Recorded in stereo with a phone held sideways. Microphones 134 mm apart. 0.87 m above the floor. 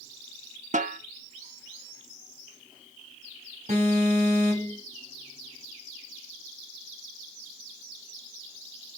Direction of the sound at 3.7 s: 60° right (ahead or behind).